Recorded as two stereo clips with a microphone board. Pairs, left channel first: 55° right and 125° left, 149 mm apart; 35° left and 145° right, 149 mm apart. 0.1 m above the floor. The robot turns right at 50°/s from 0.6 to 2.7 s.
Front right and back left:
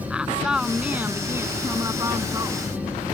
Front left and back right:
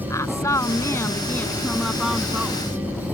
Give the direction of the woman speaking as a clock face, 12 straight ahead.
10 o'clock.